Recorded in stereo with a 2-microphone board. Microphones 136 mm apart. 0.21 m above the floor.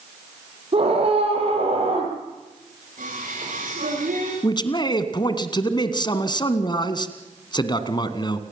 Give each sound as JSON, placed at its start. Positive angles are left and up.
{"t": 0.7, "sound": "a scream", "side_deg": -45, "distance_m": 7.5}
{"t": 3.0, "sound": "singing", "side_deg": -75, "distance_m": 9.5}
{"t": 4.4, "sound": "a man speaking", "side_deg": 35, "distance_m": 2.0}